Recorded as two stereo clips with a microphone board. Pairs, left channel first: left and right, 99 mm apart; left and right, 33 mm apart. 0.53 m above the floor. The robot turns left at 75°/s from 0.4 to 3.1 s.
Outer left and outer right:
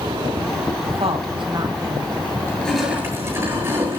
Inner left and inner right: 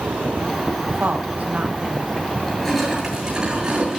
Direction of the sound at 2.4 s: 25° left.